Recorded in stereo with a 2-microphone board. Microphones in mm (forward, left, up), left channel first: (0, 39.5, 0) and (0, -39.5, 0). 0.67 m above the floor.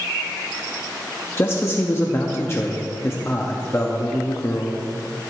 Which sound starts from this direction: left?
A man speaking, at 1.4 s.